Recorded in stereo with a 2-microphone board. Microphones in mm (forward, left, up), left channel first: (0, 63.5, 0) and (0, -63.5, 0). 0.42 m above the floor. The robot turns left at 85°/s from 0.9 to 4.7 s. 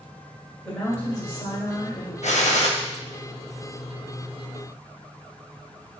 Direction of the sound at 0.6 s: 150° left.